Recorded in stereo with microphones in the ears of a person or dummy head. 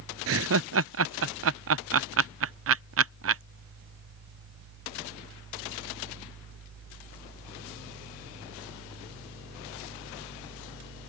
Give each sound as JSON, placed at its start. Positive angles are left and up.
{"t": 0.3, "sound": "laughter", "side_deg": -60}